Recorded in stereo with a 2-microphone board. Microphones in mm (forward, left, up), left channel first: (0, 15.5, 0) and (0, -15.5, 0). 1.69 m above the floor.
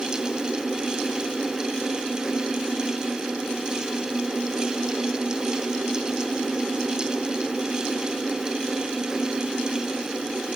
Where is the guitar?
I don't hear a guitar.